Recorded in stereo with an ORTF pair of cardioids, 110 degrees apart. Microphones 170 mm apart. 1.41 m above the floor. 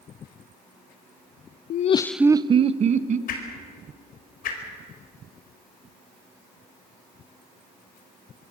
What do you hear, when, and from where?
1.7 s laughter: 65° left, 0.6 m; by 3.2 s 50° right, 1.6 m
3.3 s a whoosh: 65° left, 4.5 m